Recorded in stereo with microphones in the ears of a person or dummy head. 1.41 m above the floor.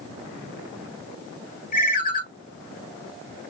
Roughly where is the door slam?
I don't hear a door slam.